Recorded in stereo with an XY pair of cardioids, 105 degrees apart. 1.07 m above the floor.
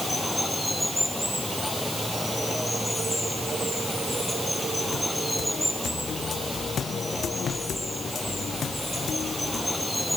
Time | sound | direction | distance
0.0 | running water | 5° left | ?